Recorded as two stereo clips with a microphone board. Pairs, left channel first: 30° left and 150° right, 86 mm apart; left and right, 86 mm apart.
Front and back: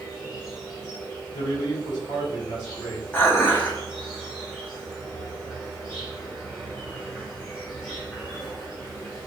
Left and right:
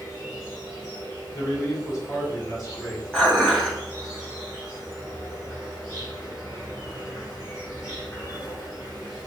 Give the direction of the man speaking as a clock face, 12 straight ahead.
10 o'clock.